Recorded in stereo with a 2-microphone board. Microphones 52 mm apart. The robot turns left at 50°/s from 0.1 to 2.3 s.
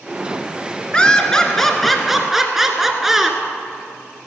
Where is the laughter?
20° left (ahead or behind), 1.2 m; by 3.4 s 5° right (ahead or behind), 1.2 m.